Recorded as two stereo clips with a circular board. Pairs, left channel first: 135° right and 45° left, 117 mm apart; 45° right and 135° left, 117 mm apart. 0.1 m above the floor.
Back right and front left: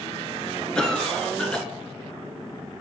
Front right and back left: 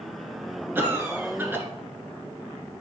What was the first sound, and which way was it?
A cough, 155° left.